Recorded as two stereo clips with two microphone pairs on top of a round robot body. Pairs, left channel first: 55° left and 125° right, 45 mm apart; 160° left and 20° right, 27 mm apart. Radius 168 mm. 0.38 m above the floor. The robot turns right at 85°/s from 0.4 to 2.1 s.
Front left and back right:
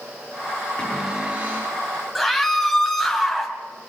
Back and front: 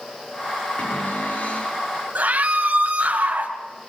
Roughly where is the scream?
Ahead right.